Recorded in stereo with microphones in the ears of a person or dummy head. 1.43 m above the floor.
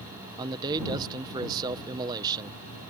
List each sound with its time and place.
0.4 s a man speaking: 20° right (ahead or behind)